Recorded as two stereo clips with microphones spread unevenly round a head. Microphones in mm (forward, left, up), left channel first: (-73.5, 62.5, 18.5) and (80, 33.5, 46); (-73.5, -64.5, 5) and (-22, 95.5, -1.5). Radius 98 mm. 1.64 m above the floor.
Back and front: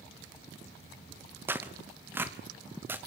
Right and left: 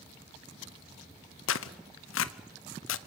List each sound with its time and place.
1.5 s tearing paper: 90° right, 0.8 m